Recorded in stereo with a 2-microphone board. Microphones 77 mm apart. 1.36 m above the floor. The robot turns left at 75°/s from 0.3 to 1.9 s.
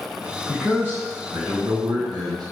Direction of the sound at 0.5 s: 15° left.